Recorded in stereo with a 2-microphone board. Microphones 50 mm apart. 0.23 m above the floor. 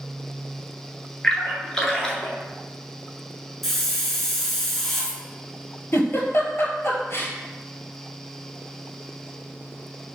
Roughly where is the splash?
Centre.